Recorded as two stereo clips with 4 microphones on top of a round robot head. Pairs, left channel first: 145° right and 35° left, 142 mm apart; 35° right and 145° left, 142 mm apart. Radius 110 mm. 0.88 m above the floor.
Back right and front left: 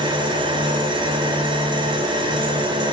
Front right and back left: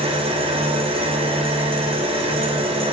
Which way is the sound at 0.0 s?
95° left.